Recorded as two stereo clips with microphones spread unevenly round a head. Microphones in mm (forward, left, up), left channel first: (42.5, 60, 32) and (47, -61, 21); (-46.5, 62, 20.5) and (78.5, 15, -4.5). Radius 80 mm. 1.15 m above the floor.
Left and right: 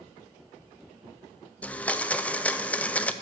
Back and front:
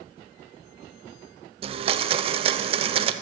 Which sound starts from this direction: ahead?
A blender, at 1.6 s.